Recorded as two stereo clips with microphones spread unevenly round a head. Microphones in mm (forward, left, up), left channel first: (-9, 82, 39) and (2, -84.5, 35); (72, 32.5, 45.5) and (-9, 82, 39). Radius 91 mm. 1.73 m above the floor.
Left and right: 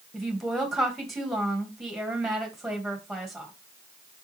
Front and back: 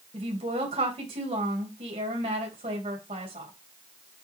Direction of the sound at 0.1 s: 175° right.